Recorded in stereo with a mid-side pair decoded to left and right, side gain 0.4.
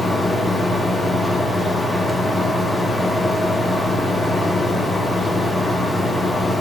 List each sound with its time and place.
0.0 s a fan: 15° left, 1.3 m